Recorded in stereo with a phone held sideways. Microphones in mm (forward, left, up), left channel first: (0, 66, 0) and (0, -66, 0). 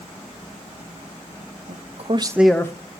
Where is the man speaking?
70° right (ahead or behind), 0.9 m; by 2.7 s 25° left (ahead or behind), 0.7 m.